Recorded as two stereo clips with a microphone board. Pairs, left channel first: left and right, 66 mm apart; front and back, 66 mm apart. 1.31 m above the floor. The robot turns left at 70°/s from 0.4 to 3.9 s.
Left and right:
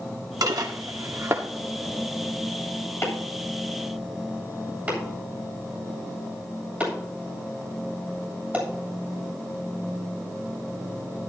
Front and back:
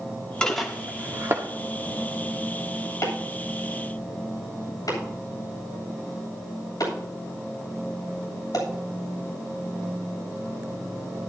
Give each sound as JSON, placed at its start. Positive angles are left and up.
{"t": 0.4, "sound": "dishes clattering", "azimuth_deg": -75, "distance_m": 1.9}
{"t": 3.0, "sound": "chopping", "azimuth_deg": 40, "distance_m": 9.0}